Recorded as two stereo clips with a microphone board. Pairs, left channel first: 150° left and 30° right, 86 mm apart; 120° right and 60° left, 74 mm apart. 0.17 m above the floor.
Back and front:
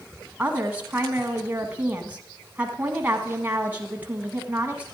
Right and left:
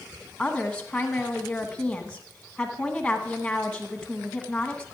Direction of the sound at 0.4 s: 65° right.